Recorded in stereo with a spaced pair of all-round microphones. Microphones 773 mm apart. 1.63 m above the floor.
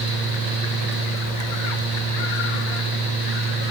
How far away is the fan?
About 9 m.